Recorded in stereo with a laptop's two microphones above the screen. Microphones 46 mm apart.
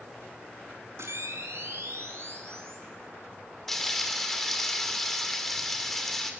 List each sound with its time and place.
1.0 s a camera shutter: 75° right (ahead or behind), 4.5 m
3.7 s frying: 5° left (ahead or behind), 2.5 m